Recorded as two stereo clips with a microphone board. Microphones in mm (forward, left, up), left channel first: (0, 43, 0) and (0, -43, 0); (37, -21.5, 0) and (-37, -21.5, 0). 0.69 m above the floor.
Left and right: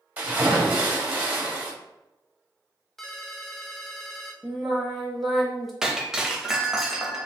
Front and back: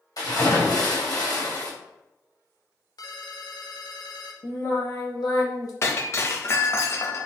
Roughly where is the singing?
Ahead.